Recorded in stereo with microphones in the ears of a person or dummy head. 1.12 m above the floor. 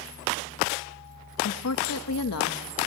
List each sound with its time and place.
1.4 s a woman speaking: 75° left (ahead or behind), 1.2 m